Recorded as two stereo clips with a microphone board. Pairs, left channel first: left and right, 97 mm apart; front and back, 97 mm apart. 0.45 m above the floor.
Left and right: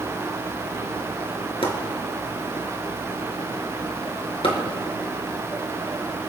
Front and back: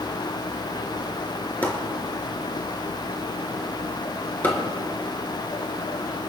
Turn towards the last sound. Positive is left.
turn(degrees=70)